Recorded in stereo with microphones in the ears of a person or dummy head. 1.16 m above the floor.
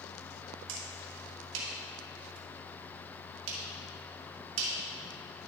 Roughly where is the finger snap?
Right.